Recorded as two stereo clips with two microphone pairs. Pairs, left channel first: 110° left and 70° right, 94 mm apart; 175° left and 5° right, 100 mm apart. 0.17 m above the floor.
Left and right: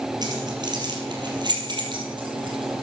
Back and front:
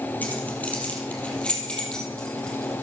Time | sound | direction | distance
0.2 | keys jangling | 110° right | 3.5 m